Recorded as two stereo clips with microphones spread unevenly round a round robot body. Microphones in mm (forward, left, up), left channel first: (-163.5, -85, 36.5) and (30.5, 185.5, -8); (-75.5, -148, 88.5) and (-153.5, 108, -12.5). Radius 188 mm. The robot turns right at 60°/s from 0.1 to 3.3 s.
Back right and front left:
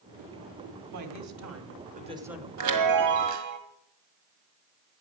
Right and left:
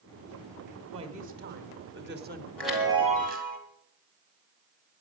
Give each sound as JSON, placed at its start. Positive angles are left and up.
{"t": 0.9, "sound": "a woman speaking", "azimuth_deg": 50, "distance_m": 2.0}
{"t": 2.6, "sound": "a chime", "azimuth_deg": 25, "distance_m": 2.0}